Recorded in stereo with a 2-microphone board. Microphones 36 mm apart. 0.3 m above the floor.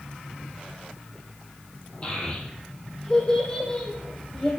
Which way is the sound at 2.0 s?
25° left (ahead or behind).